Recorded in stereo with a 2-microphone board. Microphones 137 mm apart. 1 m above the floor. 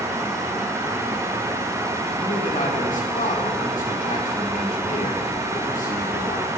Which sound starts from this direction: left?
A man speaking, at 2.2 s.